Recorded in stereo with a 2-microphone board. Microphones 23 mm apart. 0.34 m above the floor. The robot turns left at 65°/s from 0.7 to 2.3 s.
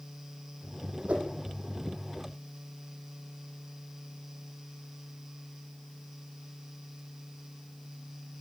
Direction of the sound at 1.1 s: 65° right (ahead or behind).